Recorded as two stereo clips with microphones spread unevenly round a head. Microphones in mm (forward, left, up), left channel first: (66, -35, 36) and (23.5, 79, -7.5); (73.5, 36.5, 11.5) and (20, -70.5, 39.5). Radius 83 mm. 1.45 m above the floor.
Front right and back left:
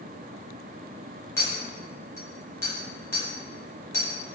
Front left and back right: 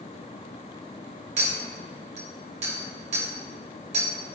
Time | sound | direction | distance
1.4 | a clink | 130° right | 1.4 m